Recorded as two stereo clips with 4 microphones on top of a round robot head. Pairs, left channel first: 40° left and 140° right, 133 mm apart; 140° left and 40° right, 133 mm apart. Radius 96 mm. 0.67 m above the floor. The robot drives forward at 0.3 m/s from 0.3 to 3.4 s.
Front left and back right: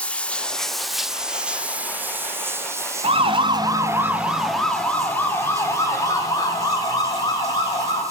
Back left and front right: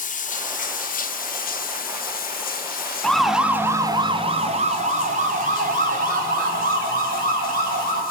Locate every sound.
0.0 s running water: 120° left, 0.9 m; by 8.1 s 150° left, 1.6 m
3.0 s a siren: 135° right, 2 m; by 8.0 s 20° right, 7 m